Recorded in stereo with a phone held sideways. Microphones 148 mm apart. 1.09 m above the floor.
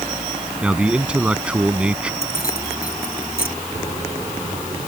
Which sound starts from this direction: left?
Keys jangling, at 2.2 s.